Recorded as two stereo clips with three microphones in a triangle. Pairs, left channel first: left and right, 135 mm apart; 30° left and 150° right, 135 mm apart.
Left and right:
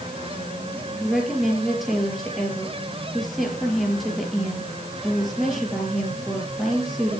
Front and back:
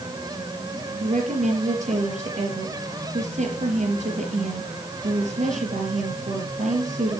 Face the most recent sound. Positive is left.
turn(degrees=180)